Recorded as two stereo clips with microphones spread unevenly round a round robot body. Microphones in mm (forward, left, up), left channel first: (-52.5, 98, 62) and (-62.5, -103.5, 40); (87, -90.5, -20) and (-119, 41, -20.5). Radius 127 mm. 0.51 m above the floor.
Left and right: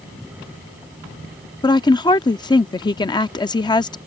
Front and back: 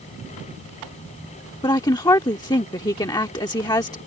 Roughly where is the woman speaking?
Ahead left.